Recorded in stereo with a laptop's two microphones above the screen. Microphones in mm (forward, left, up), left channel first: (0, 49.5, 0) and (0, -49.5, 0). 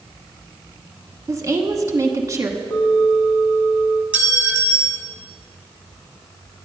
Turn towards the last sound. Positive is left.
turn(degrees=-15)  # may be behind; listen again after turning